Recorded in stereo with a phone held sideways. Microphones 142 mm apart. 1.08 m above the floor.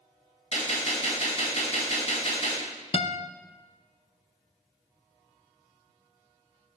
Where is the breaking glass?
No breaking glass in this recording.